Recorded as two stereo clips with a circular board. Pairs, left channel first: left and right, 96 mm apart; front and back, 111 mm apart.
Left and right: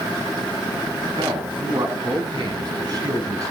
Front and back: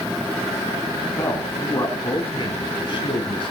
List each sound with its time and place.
1.2 s a man speaking: 65° right, 4 m; by 3.5 s 40° right, 4 m